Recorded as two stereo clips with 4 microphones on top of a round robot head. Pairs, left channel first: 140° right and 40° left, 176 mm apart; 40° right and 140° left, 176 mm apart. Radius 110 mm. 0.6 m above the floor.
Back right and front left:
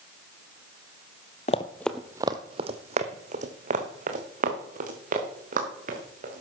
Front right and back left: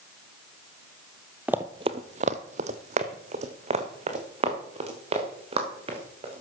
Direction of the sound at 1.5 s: 140° right.